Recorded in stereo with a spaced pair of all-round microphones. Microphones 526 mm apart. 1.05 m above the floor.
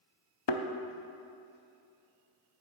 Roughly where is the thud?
Left.